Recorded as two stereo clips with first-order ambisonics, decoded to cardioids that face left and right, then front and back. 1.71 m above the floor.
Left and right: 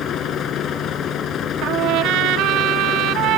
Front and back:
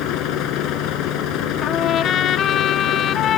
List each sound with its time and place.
0.0 s a vehicle: 35° left
1.6 s a trumpet: 55° right